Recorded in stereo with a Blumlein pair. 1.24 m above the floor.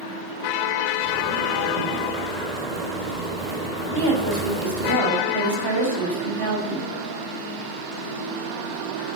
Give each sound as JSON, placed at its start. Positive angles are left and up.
{"t": 1.0, "sound": "a zipper", "azimuth_deg": -20, "distance_m": 5.0}
{"t": 3.9, "sound": "a woman speaking", "azimuth_deg": -65, "distance_m": 5.0}